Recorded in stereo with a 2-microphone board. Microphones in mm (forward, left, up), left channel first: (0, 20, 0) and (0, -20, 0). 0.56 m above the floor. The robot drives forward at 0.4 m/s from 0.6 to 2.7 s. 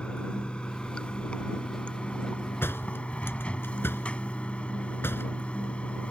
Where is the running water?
30° left (ahead or behind); by 6.1 s 35° left (ahead or behind).